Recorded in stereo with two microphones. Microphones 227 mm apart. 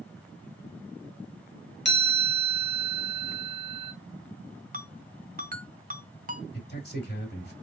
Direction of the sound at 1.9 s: 50° left (ahead or behind).